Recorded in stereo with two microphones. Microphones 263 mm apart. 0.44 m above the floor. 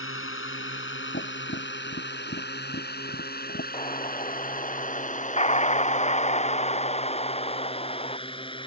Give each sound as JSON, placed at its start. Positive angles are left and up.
{"t": 0.0, "sound": "a drone", "side_deg": 50}
{"t": 1.1, "sound": "tapping", "side_deg": 45}
{"t": 3.7, "sound": "an explosion", "side_deg": 25}